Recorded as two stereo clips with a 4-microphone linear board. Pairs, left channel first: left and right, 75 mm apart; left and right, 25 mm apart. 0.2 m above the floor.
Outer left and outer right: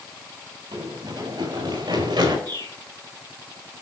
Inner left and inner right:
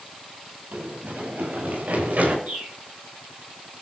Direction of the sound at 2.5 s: 85° right.